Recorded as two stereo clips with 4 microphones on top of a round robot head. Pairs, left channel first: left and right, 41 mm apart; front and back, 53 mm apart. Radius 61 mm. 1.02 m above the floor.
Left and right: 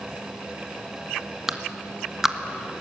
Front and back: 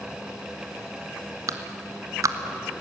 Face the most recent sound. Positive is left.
turn(degrees=-170)